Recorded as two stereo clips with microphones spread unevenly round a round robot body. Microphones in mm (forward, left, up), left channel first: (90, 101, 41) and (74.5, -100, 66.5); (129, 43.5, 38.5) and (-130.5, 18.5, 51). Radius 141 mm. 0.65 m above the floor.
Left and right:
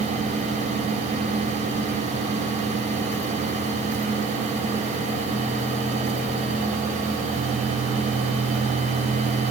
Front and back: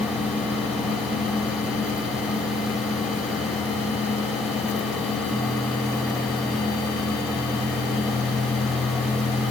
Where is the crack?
No crack in this recording.